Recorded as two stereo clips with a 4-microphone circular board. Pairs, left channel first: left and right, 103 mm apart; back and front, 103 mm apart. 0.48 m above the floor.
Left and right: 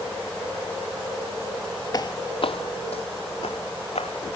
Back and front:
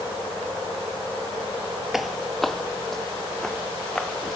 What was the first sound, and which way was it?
Footsteps, 85° left.